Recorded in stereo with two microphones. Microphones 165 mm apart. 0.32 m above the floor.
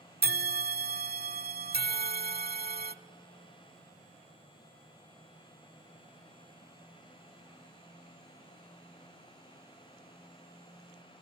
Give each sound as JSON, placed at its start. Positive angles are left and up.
{"t": 0.2, "sound": "a bell", "side_deg": -70, "distance_m": 0.6}